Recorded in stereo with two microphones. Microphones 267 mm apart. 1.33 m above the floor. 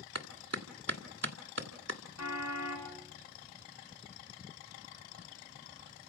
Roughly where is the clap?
Right.